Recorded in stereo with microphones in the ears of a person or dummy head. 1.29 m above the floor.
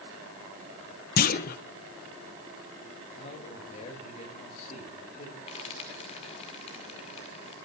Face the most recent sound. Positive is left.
turn(degrees=30)  # may be behind; listen again after turning